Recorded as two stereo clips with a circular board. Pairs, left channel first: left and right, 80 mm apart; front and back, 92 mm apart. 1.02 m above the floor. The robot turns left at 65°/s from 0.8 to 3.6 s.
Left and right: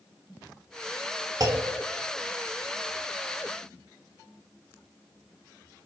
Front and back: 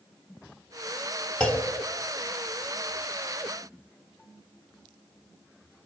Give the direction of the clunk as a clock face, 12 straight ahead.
2 o'clock.